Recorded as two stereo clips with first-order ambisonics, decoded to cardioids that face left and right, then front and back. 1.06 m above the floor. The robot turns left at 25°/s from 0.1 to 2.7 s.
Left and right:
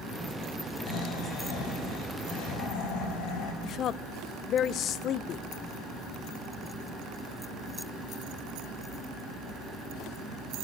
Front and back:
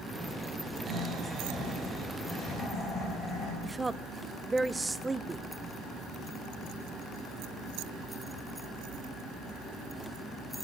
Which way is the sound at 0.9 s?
120° left.